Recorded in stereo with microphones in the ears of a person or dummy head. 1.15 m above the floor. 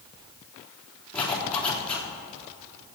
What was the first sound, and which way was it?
A zipper, 5° left (ahead or behind).